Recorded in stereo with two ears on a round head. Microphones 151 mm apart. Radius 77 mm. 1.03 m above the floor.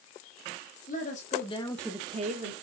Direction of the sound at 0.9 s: 50° left (ahead or behind).